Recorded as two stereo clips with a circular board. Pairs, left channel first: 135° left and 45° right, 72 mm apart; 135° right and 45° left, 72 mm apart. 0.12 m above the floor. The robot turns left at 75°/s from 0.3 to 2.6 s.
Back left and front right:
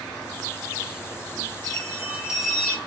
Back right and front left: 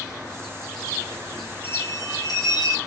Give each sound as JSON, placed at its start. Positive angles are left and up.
{"t": 1.6, "sound": "a bell", "azimuth_deg": -75, "distance_m": 0.8}